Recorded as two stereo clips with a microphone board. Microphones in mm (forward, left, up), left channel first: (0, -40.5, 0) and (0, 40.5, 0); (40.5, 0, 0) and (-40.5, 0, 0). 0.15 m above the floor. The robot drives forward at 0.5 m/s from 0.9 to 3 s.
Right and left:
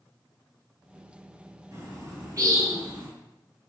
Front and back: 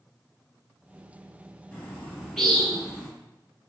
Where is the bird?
70° left, 1.8 m; by 3.1 s 100° left, 1.7 m.